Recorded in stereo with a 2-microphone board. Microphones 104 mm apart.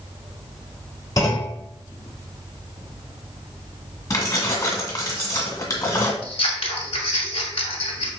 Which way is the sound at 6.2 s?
70° left (ahead or behind).